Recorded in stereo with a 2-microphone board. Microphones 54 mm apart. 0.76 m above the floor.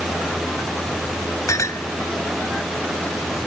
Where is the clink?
85° left.